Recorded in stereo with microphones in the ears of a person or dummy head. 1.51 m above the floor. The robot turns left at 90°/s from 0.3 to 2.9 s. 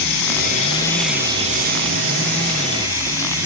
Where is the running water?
65° left, 3.5 m; by 3.5 s 165° right, 3.5 m.